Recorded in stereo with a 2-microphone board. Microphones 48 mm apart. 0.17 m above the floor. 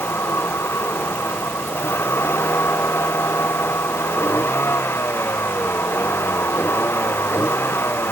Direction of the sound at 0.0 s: 60° left (ahead or behind).